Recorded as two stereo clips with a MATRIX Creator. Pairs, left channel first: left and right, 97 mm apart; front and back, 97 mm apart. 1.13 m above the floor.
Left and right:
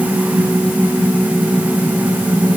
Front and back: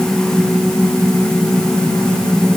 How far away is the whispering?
I don't hear whispering.